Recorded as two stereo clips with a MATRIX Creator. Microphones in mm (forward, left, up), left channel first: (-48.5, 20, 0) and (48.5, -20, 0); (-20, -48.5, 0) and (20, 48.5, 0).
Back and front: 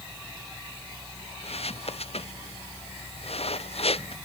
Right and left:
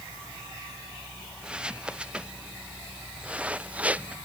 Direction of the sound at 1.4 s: 145° left.